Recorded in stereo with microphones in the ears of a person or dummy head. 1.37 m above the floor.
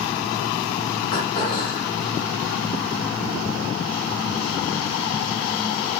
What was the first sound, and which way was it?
Throat clearing, 50° left (ahead or behind).